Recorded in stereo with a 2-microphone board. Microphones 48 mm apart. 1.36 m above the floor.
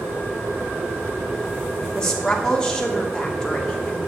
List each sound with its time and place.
1.9 s a woman speaking: 15° left (ahead or behind), 2.5 m